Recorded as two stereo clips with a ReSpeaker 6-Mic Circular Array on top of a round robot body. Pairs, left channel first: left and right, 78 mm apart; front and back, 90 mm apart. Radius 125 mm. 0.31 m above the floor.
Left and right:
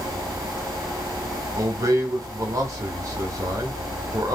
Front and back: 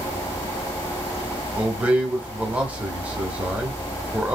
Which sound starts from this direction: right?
A man speaking, at 1.6 s.